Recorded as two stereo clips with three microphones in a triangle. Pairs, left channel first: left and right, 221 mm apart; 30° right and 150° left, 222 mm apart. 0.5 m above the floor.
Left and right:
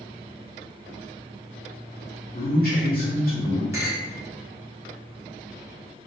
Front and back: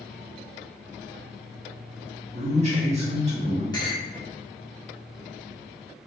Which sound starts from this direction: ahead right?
A clink, at 3.7 s.